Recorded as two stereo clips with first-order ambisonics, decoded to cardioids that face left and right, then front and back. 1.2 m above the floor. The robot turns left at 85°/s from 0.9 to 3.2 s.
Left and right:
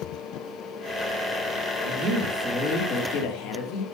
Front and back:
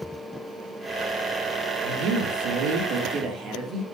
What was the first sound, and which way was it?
A woman speaking, 120° right.